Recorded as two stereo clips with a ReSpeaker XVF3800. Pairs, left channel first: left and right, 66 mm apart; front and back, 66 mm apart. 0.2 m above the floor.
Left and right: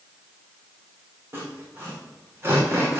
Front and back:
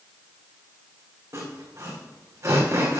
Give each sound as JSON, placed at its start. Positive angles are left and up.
{"t": 1.3, "sound": "sawing", "azimuth_deg": -135, "distance_m": 2.5}